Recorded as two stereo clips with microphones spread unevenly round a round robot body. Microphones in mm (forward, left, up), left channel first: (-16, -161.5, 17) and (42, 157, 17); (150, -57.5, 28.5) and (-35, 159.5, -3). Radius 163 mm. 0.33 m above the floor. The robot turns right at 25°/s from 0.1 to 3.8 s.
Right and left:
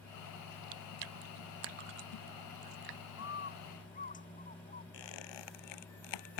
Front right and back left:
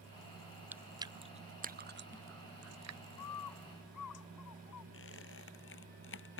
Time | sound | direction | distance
0.7 | chewing | 45° left | ?
3.2 | a bird | 50° right | ?
4.9 | a squeak | 105° right | ?